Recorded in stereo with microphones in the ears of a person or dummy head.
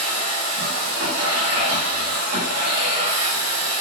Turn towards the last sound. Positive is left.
turn(degrees=-75)  # may be behind; listen again after turning